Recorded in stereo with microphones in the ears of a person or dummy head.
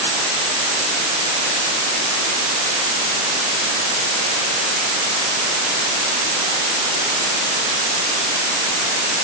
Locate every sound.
Only background noise.